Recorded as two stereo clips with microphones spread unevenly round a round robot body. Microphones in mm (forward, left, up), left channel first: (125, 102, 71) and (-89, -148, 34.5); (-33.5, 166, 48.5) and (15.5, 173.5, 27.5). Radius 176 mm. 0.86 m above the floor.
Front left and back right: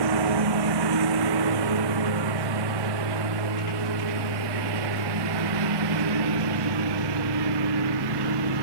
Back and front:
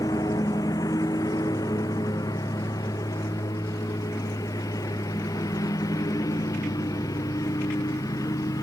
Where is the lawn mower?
120° right; by 8.6 s 135° right.